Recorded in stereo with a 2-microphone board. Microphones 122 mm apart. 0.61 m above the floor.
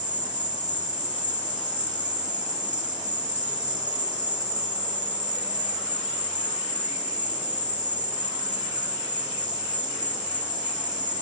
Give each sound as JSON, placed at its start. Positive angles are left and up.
{"t": 0.0, "sound": "an insect", "side_deg": -85, "distance_m": 1.2}